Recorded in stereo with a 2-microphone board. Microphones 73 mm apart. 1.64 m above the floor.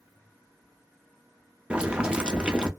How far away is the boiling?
About 0.6 m.